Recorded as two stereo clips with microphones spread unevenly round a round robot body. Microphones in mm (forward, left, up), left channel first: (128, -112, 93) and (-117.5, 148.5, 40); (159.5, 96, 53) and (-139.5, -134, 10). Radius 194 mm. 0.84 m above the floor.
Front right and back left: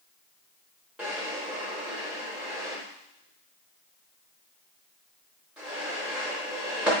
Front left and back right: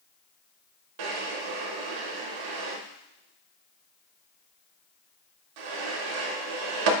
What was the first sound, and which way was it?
A drawer, 135° right.